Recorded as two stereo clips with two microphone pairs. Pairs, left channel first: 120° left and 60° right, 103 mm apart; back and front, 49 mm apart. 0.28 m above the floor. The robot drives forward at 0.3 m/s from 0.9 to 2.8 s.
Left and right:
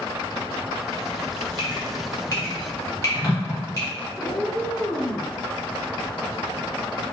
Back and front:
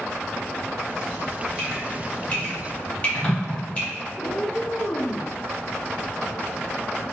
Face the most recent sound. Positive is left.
turn(degrees=-165)